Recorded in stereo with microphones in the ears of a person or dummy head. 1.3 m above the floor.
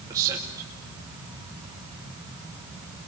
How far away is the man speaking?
About 2.5 m.